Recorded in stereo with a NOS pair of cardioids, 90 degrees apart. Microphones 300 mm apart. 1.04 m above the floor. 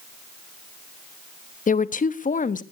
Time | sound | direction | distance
1.7 | a woman speaking | 25° left | 1.0 m